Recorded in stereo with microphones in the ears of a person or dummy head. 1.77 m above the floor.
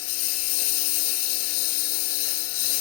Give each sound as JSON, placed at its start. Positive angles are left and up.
{"t": 0.0, "sound": "a lawn mower", "side_deg": 75}